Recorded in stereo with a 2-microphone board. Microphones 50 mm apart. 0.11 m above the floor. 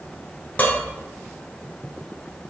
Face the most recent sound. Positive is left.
turn(degrees=30)  # may be behind; listen again after turning